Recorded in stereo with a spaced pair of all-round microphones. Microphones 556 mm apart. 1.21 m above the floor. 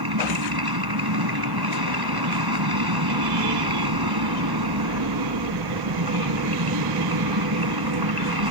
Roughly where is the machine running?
Right.